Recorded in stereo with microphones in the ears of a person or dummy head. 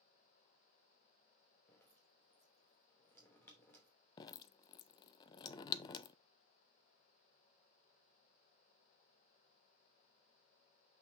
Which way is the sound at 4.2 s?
25° left (ahead or behind).